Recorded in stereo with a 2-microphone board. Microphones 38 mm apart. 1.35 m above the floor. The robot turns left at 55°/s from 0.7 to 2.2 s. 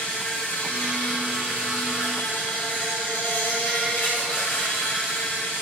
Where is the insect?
145° left, 2 m; by 5.6 s 60° left, 2 m.